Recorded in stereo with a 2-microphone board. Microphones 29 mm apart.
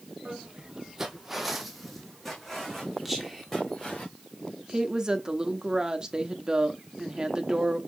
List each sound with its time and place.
0.2 s footsteps: 40° right (ahead or behind), 0.9 m; by 4.0 s 15° left (ahead or behind), 3 m
3.0 s whispering: 5° right (ahead or behind), 1.2 m
4.7 s a woman speaking: 25° right (ahead or behind), 0.9 m